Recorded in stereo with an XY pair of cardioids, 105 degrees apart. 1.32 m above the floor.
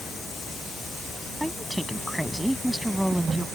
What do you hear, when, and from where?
1.4 s a woman speaking: 5° right